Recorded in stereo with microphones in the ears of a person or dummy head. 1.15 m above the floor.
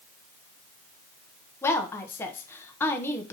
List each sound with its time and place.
1.6 s a woman speaking: 10° left (ahead or behind), 0.6 m